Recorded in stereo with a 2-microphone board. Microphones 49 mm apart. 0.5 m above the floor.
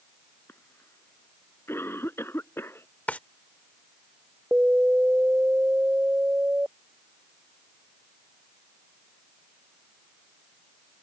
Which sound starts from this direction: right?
An alarm, at 4.5 s.